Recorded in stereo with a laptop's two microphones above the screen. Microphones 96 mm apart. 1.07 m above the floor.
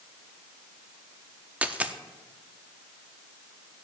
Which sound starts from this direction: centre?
A dropped coin, at 1.6 s.